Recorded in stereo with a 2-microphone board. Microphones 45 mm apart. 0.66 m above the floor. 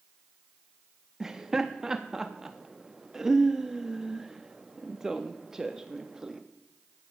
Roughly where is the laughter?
Centre.